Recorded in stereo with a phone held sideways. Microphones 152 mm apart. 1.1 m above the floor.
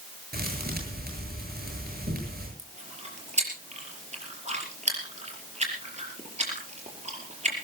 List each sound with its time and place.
0.3 s a thud: 80° right, 8.5 m
2.6 s chewing: 45° right (ahead or behind), 5 m